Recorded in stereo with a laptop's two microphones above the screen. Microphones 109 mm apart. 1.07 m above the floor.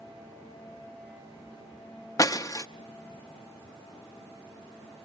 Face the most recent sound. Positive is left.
turn(degrees=30)  # may be behind; listen again after turning